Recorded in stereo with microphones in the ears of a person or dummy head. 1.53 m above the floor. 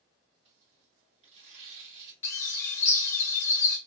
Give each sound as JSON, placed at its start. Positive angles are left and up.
{"t": 0.5, "sound": "tearing paper", "side_deg": -45, "distance_m": 1.7}
{"t": 2.2, "sound": "a bird", "side_deg": 20, "distance_m": 0.7}